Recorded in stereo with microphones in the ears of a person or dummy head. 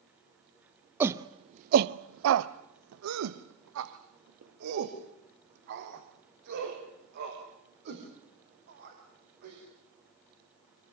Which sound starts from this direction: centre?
A shout, at 1.0 s.